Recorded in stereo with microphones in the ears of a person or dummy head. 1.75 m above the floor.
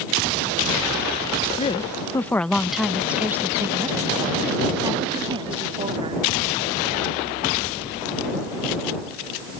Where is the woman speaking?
30° left (ahead or behind); by 6.3 s 25° right (ahead or behind).